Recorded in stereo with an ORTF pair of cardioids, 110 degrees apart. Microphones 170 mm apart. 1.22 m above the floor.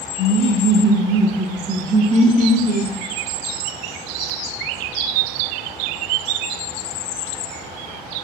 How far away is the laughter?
About 1.1 m.